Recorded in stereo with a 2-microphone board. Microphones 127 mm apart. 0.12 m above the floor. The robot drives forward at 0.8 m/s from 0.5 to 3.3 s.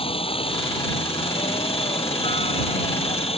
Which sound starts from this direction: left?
A helicopter, at 0.0 s.